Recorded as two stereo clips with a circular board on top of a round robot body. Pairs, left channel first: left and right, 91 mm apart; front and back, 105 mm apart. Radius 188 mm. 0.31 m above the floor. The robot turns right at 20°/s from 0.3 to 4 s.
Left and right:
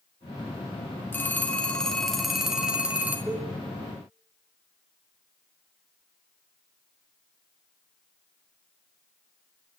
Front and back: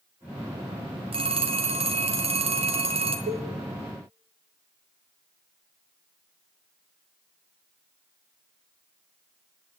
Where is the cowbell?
170° right, 0.7 m; by 3.5 s 165° right, 0.7 m.